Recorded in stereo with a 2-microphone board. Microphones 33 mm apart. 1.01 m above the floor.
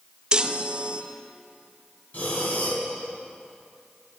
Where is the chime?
20° right (ahead or behind), 0.5 m.